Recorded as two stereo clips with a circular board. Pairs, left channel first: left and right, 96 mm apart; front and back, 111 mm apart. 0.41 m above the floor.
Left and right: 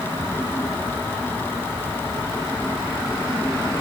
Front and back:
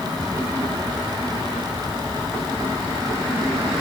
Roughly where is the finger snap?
I don't hear a finger snap.